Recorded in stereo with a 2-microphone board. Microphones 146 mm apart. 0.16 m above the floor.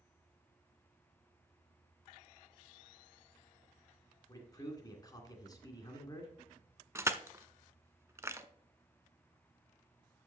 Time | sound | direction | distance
4.3 | a man speaking | 25° left (ahead or behind) | 2 m
7.0 | crushing | 20° right (ahead or behind) | 0.5 m